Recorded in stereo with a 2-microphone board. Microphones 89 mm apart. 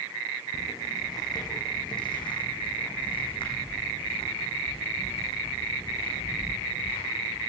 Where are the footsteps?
35° left (ahead or behind), 3 m; by 7.5 s 75° left (ahead or behind), 5.5 m.